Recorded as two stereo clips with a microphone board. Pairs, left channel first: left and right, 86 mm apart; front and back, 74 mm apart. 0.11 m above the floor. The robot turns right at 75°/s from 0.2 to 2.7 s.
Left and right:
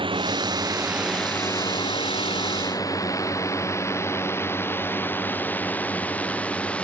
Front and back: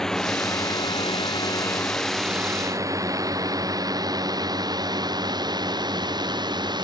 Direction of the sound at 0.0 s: 85° right.